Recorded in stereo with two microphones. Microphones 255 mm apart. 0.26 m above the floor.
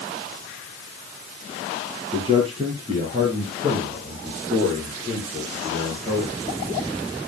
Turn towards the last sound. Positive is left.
turn(degrees=-30)  # may be behind; listen again after turning